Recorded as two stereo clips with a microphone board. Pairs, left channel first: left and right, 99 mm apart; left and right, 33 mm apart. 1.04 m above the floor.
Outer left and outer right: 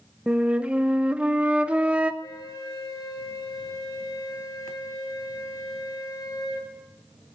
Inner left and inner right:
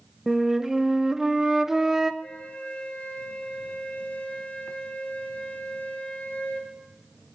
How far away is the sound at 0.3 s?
About 0.6 m.